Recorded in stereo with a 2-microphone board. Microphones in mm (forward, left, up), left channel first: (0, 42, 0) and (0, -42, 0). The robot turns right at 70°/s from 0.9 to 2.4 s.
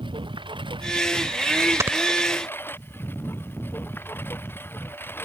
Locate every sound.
0.0 s a lawn mower: 80° right; by 5.2 s 25° left
1.8 s snoring: 35° right (ahead or behind); by 2.0 s 20° right (ahead or behind)